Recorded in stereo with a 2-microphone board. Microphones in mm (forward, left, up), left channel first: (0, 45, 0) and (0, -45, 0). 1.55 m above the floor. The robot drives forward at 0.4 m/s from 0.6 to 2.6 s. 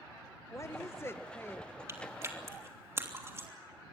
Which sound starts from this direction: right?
Chewing, at 1.9 s.